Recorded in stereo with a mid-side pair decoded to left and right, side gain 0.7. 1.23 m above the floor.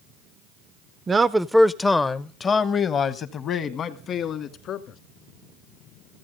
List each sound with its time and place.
1.1 s a man speaking: 25° right, 0.5 m; by 5.0 s 50° left, 2 m